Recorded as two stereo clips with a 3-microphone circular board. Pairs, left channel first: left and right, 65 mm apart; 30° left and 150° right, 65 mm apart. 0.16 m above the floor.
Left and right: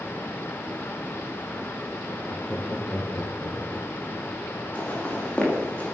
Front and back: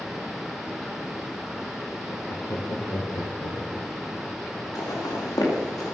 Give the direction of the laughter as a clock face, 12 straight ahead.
11 o'clock.